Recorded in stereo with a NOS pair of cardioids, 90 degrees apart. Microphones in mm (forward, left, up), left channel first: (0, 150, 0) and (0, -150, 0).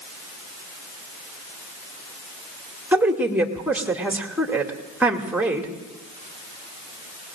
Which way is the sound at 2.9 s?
5° right.